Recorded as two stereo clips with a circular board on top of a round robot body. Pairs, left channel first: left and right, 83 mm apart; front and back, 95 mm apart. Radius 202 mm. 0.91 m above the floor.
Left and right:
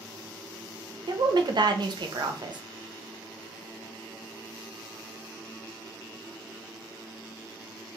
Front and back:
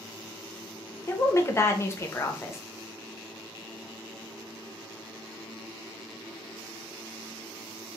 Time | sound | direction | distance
1.1 | a woman speaking | 60° right | 0.6 m